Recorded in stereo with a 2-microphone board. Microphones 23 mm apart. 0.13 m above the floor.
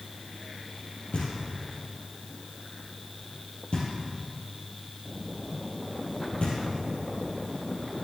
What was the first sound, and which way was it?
Knocking, 55° left (ahead or behind).